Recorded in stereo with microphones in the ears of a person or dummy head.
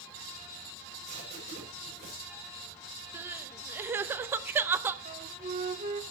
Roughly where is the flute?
Right.